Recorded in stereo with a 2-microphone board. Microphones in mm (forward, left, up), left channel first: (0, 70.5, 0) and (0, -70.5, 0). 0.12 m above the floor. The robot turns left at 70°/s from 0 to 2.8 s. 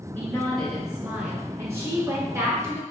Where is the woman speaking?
15° left (ahead or behind), 1.2 m; by 2.8 s 15° right (ahead or behind), 1.2 m.